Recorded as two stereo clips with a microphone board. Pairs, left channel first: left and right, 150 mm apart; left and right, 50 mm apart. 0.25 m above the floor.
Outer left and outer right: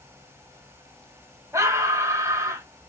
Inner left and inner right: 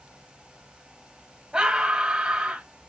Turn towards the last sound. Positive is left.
turn(degrees=-20)  # may be behind; listen again after turning